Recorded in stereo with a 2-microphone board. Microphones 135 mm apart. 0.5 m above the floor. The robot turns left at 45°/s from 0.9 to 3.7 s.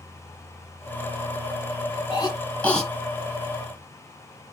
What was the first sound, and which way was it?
A cough, 35° left (ahead or behind).